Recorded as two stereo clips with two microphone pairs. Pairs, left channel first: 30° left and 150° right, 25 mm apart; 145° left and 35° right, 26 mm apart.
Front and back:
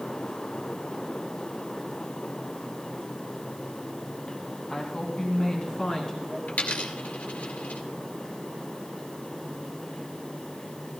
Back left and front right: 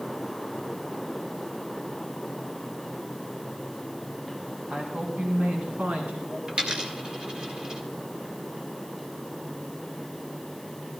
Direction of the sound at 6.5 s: 25° left.